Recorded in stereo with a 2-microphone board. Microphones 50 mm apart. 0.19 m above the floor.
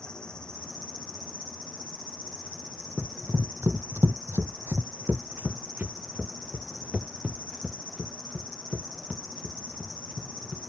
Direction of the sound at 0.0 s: 15° left (ahead or behind).